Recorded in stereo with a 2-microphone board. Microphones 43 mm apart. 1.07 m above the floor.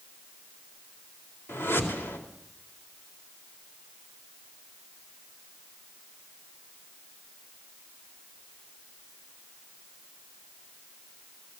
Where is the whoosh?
80° left, 4 m.